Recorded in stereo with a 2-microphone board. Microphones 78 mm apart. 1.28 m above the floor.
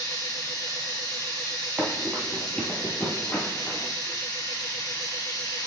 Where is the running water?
70° left (ahead or behind), 3 m.